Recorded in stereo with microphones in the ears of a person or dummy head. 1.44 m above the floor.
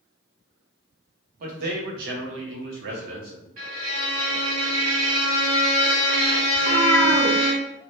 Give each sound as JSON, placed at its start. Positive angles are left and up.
{"t": 1.4, "sound": "a man speaking", "side_deg": -50, "distance_m": 1.0}
{"t": 3.6, "sound": "a violin", "side_deg": -40, "distance_m": 1.6}
{"t": 6.5, "sound": "a cat meowing", "side_deg": 15, "distance_m": 0.8}